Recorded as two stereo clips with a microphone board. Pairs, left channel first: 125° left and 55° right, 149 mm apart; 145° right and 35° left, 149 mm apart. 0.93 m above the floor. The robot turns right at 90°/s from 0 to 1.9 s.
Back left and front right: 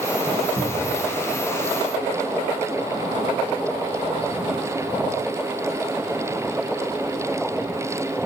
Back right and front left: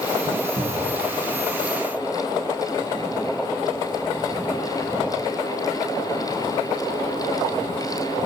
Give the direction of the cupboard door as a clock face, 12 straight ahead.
12 o'clock.